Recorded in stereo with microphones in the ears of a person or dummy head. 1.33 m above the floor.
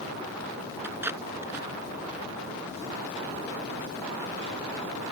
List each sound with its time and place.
0.8 s tape being pulled: 10° right (ahead or behind)